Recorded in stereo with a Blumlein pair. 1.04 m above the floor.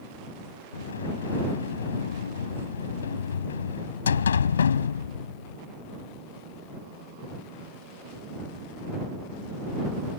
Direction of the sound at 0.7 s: 65° left.